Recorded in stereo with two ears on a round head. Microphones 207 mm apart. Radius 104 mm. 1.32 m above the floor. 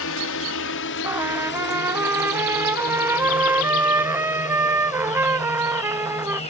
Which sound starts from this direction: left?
A drone, at 0.0 s.